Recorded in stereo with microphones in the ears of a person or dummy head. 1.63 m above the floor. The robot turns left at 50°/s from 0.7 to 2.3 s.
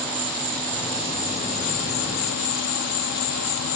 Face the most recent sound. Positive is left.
turn(degrees=90)